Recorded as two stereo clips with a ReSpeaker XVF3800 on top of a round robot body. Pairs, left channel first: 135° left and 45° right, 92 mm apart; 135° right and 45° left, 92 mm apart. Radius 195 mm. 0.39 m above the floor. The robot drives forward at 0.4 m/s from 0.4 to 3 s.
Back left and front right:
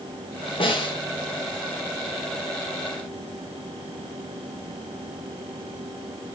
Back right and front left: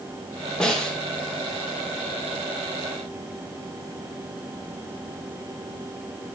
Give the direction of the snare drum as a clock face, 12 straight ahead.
7 o'clock.